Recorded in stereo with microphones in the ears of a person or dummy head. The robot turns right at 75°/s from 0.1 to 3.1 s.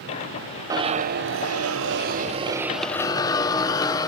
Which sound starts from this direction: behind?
A zipper, at 0.7 s.